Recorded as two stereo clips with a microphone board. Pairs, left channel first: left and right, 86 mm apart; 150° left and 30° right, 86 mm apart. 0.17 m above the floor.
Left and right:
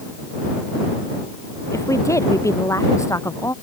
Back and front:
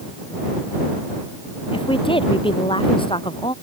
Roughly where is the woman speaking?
Behind left.